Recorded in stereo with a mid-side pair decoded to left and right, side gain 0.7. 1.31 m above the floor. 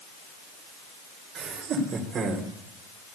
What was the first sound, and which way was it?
Laughter, 50° right.